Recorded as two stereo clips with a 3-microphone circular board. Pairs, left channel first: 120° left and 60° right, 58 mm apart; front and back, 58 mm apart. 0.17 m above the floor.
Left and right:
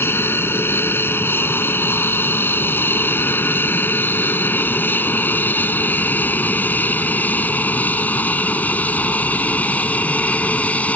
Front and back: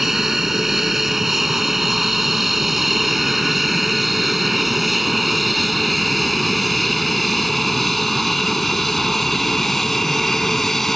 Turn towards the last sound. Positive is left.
turn(degrees=80)